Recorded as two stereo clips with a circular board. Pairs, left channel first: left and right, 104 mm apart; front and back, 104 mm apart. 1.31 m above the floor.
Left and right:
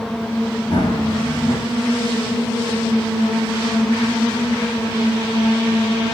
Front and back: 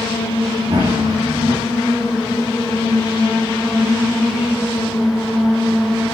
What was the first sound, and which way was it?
Running footsteps, 130° left.